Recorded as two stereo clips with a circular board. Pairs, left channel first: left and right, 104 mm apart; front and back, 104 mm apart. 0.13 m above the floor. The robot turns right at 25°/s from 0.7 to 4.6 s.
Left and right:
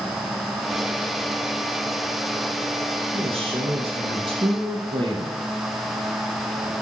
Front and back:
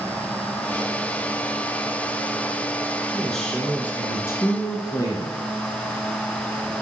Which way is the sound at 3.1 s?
90° right.